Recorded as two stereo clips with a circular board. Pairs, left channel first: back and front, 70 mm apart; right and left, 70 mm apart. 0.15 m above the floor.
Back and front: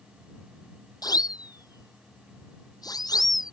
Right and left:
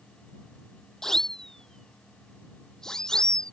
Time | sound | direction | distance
1.0 | a siren | 175° right | ?